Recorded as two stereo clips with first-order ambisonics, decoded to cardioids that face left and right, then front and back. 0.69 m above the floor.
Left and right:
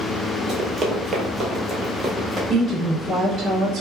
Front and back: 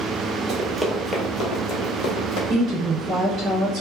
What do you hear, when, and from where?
0.5 s running footsteps: 140° right, 0.8 m; by 2.4 s straight ahead, 1.3 m
2.5 s a woman speaking: 140° right, 1.2 m